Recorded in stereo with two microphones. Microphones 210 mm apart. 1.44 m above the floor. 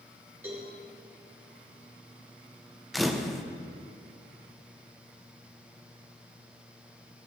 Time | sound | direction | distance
0.4 | a cowbell | 10° right (ahead or behind) | 3 m
2.9 | a camera shutter | centre (ahead or behind) | 0.7 m